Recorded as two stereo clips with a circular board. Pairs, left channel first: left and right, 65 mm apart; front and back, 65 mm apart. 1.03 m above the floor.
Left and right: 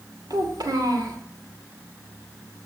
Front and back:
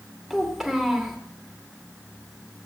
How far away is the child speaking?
About 2 m.